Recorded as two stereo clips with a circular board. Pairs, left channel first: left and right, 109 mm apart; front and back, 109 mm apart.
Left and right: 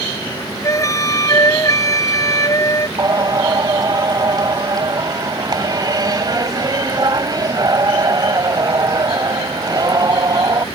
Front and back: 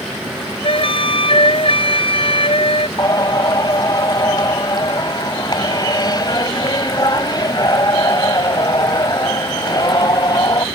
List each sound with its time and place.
0.6 s a flute: 35° left
3.0 s singing: 45° right